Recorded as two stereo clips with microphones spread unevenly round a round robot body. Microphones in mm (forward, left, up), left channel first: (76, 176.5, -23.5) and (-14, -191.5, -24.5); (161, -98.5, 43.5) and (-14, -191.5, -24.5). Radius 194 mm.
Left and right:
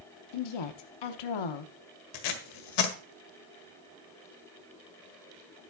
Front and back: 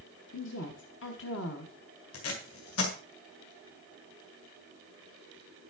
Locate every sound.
0.3 s a woman speaking: 80° left, 0.9 m
2.1 s tape being pulled: 50° left, 1.7 m